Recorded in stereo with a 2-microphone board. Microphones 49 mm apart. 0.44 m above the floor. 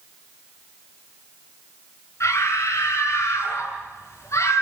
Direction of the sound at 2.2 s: 75° left (ahead or behind).